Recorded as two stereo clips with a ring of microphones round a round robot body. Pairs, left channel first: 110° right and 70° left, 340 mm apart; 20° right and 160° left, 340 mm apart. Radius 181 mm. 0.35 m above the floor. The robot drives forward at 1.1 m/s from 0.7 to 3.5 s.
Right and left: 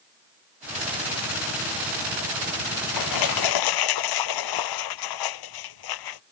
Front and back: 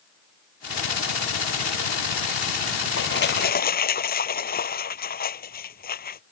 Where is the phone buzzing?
No phone buzzing in this recording.